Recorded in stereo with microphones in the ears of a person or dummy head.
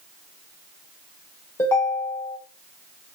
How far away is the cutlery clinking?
No cutlery clinking in this recording.